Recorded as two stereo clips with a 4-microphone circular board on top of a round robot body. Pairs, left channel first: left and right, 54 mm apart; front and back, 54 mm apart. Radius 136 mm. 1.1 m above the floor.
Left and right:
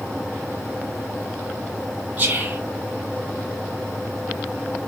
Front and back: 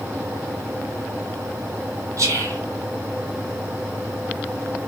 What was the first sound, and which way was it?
Whispering, 155° right.